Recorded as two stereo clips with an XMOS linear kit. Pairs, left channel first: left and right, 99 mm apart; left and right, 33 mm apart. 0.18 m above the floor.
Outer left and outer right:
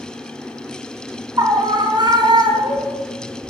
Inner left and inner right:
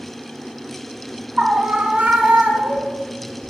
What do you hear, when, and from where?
1.4 s a scream: 40° right (ahead or behind), 1.7 m; by 3.0 s 55° right (ahead or behind), 2.5 m